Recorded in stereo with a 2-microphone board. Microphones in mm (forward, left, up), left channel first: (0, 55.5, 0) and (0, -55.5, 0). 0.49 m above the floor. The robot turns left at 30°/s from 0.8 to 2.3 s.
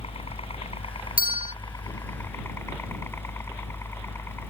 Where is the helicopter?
65° left; by 4.5 s 20° left.